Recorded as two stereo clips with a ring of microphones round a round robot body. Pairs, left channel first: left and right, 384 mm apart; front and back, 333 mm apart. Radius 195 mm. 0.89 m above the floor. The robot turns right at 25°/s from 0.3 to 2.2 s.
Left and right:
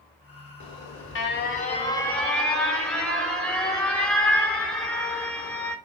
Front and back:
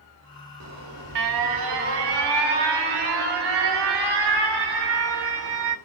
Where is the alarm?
135° left, 1.6 m; by 5.8 s 175° left, 1.6 m.